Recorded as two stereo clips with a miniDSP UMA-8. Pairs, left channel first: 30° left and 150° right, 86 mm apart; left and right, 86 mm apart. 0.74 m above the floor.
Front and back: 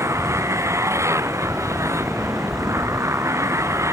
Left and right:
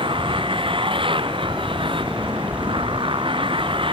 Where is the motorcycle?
95° right.